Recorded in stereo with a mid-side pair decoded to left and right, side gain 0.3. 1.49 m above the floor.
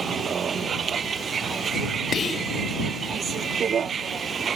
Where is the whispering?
60° left.